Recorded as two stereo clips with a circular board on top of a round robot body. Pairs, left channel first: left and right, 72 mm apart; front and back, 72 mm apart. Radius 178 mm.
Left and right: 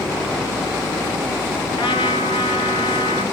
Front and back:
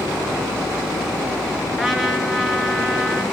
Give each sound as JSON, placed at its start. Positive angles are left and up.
{"t": 1.7, "sound": "a trumpet", "azimuth_deg": 90, "distance_m": 1.4}